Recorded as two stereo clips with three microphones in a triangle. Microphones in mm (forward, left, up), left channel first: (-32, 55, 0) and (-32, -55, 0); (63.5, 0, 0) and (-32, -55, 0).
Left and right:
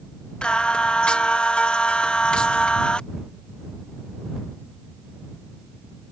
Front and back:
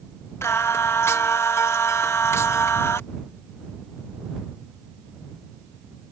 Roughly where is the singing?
Ahead left.